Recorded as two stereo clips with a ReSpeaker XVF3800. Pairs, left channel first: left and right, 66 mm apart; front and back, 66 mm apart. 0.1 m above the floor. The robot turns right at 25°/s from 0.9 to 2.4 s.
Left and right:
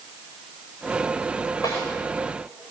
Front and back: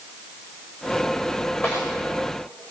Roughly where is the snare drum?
Ahead left.